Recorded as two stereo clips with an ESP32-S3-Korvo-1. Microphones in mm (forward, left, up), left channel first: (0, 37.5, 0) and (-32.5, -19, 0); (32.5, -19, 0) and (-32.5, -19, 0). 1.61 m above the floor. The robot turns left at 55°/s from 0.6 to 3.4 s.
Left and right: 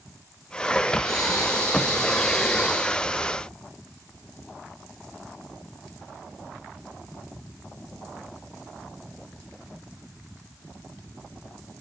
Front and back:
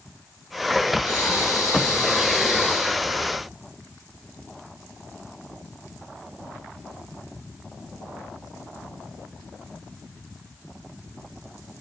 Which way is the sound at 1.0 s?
35° left.